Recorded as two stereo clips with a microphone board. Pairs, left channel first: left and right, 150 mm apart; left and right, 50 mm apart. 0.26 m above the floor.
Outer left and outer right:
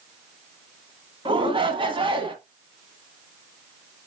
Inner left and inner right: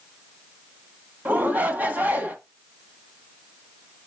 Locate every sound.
1.2 s a shout: 35° right (ahead or behind), 1.7 m